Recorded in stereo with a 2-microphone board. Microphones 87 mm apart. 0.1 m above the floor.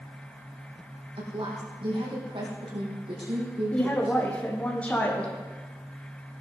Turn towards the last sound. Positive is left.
turn(degrees=15)  # may be behind; listen again after turning